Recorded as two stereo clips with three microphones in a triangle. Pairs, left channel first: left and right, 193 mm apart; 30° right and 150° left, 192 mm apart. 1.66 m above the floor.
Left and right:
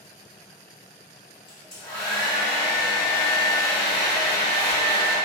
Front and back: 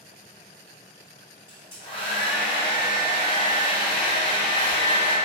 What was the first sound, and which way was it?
A hair dryer, 70° left.